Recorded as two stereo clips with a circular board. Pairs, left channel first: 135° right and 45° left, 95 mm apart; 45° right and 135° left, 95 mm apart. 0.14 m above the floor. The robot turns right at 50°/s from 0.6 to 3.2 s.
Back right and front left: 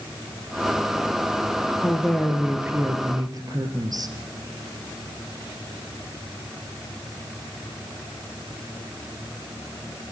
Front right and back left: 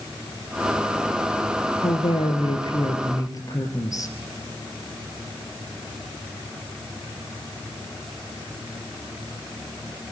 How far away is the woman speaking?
About 2.5 m.